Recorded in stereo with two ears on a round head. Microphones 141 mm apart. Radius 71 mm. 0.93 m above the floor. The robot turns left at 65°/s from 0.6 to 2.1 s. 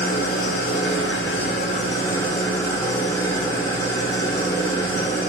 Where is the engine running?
115° left, 0.7 m; by 5.3 s 20° left, 0.7 m.